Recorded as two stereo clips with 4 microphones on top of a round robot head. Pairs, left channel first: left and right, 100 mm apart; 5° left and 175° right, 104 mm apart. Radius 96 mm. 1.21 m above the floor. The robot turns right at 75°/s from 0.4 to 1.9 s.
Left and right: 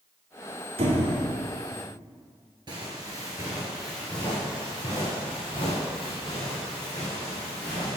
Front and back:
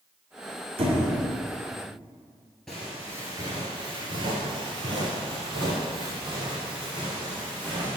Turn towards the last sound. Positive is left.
turn(degrees=145)